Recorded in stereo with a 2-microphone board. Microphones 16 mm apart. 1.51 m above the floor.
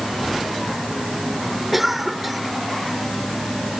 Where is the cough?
20° right (ahead or behind).